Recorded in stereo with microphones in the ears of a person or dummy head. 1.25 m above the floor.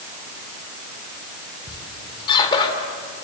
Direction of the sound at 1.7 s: 30° left (ahead or behind).